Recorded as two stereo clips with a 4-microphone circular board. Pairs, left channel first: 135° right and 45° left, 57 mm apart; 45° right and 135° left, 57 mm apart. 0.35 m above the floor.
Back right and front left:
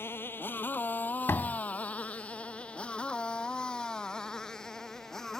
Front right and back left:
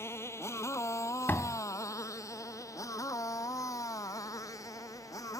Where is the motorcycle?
85° right; by 5.4 s 50° right.